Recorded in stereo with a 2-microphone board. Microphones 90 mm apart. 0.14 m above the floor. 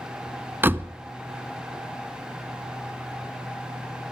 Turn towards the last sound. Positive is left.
turn(degrees=-20)  # may be behind; listen again after turning